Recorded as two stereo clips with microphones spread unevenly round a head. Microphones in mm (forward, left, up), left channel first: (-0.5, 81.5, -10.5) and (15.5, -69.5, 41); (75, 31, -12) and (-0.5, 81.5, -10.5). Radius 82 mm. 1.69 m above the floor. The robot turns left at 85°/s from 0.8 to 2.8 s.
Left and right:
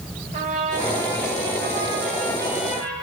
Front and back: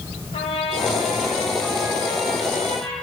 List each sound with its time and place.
0.3 s a trumpet: 50° right, 5 m; by 2.9 s 140° left, 5 m